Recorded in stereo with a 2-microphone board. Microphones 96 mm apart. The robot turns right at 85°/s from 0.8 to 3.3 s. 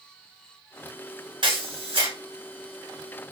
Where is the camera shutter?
120° right, 2.0 m; by 2.1 s 60° right, 2.0 m.